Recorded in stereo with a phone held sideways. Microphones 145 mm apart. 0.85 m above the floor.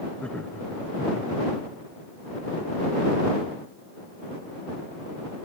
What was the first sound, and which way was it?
Laughter, 5° left (ahead or behind).